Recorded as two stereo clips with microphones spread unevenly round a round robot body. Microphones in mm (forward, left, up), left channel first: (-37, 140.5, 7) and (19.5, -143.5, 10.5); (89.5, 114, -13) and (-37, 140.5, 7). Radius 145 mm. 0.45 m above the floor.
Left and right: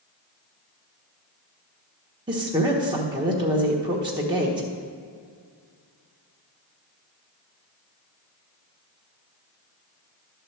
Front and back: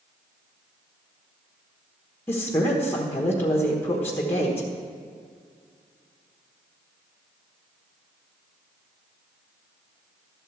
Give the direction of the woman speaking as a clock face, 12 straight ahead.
1 o'clock.